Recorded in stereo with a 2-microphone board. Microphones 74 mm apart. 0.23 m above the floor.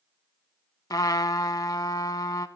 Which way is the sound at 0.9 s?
60° left (ahead or behind).